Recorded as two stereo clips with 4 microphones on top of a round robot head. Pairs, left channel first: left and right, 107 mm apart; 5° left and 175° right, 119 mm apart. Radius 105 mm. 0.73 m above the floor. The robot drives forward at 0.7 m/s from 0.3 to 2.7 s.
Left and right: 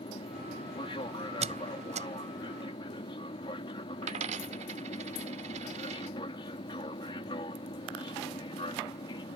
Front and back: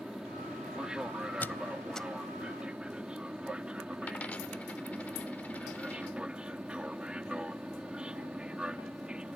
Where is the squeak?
75° right; by 2.1 s 85° right.